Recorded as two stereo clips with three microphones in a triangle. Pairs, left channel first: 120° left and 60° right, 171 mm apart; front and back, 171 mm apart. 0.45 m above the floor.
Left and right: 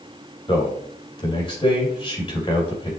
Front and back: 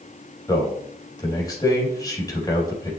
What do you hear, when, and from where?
0.5 s a man speaking: 65° left, 3 m